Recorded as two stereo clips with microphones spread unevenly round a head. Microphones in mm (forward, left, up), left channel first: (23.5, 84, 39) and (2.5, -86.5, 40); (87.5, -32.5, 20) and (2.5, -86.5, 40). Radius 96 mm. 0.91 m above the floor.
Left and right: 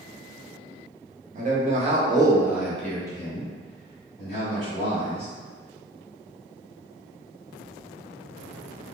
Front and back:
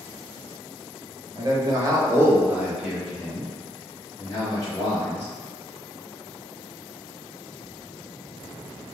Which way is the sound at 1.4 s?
100° right.